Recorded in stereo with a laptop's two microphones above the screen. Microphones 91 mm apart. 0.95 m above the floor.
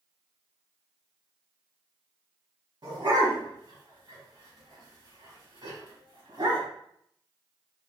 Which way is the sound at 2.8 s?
55° right (ahead or behind).